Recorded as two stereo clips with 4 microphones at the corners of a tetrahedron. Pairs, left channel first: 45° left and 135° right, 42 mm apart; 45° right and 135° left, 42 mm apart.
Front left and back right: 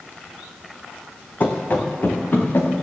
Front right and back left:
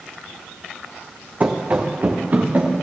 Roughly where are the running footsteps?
Left.